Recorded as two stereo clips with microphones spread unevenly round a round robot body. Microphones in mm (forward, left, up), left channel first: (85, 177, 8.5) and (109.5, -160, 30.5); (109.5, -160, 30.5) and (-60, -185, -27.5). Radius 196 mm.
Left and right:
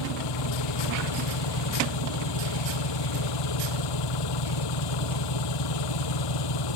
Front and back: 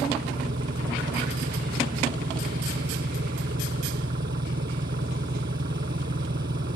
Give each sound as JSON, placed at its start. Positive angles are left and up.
{"t": 0.0, "sound": "an engine running", "azimuth_deg": 125}